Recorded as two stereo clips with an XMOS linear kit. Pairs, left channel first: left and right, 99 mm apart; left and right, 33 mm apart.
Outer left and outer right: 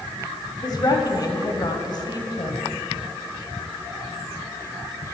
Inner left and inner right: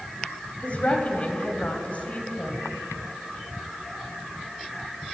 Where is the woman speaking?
45° left (ahead or behind), 1.2 m.